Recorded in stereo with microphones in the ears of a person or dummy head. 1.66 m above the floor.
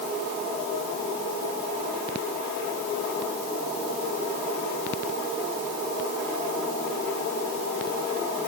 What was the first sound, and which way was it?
Only background noise.